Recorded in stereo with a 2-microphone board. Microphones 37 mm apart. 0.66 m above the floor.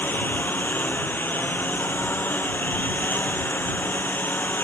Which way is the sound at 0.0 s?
60° left (ahead or behind).